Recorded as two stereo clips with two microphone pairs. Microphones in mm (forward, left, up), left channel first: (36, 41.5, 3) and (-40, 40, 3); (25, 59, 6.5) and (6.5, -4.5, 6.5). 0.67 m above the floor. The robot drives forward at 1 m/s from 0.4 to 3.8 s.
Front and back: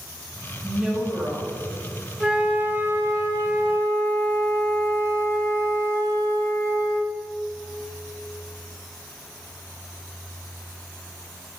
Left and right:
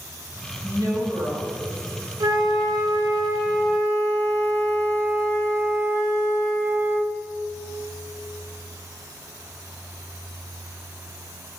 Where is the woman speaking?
90° right, 4.5 m; by 1.5 s 100° right, 4.5 m.